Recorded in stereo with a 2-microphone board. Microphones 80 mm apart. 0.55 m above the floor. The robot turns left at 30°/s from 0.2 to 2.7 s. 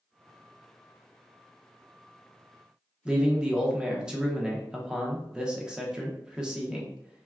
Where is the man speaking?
10° right (ahead or behind), 0.7 m.